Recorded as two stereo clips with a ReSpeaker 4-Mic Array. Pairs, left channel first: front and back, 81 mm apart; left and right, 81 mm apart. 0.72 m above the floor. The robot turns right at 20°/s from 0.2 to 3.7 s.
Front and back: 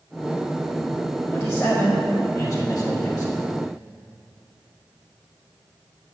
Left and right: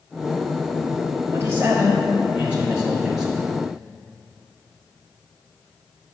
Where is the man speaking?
50° right, 1.2 m; by 3.4 s 5° right, 1.2 m.